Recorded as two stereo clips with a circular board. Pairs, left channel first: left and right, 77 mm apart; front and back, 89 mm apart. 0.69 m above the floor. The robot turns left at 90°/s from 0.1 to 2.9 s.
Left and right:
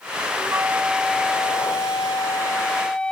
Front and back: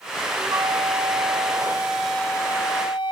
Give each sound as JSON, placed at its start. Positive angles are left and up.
{"t": 0.3, "sound": "a flute", "azimuth_deg": -120, "distance_m": 0.8}